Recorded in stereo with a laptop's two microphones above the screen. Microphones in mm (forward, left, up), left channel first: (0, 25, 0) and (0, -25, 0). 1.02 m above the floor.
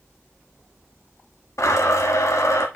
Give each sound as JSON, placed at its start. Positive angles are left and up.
{"t": 1.6, "sound": "a blender", "side_deg": 85, "distance_m": 1.2}